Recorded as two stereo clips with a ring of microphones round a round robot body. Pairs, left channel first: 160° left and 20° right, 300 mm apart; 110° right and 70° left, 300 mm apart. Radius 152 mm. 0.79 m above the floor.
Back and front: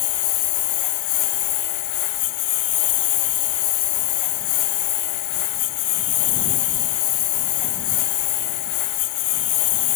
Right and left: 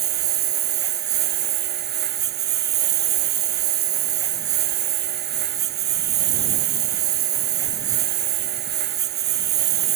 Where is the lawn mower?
125° left.